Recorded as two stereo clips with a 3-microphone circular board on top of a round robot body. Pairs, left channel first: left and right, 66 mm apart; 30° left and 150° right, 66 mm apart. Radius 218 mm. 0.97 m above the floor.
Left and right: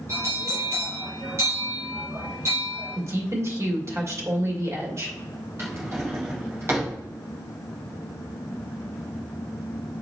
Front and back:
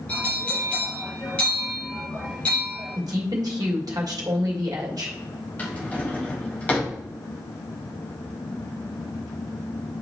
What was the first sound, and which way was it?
A bell, 40° right.